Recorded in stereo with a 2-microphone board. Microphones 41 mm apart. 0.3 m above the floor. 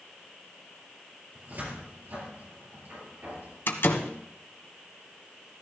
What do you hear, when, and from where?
1.4 s a cupboard door: 45° right (ahead or behind), 4 m
3.7 s a door slam: 65° left (ahead or behind), 1.4 m